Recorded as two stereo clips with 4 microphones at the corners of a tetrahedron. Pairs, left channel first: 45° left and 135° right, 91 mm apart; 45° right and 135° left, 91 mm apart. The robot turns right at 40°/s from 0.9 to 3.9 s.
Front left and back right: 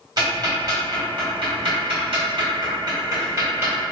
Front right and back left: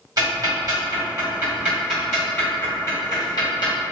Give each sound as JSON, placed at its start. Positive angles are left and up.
{"t": 0.2, "sound": "ticking", "azimuth_deg": 180, "distance_m": 1.9}